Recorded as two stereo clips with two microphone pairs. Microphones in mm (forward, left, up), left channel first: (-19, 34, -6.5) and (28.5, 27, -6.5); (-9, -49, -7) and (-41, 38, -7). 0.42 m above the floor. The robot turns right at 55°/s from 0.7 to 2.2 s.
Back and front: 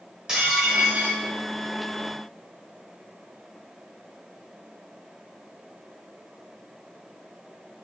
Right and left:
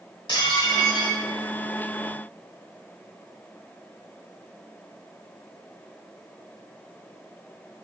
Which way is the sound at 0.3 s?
85° right.